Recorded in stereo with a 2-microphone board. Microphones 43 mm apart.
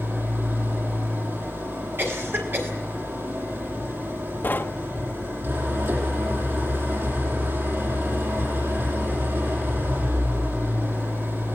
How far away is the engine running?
About 7.5 m.